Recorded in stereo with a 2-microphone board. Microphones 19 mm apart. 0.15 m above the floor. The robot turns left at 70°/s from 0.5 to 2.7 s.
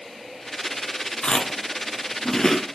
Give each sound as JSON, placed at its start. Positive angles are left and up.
{"t": 1.2, "sound": "chewing", "side_deg": 50, "distance_m": 1.0}